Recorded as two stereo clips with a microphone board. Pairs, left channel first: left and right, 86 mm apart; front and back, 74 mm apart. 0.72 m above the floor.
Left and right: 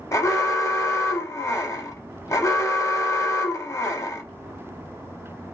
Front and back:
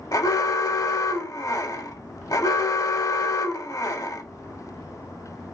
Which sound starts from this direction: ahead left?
An alarm, at 0.1 s.